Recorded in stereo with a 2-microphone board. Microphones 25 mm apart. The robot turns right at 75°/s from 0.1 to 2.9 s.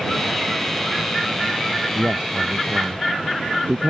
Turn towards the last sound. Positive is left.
turn(degrees=-70)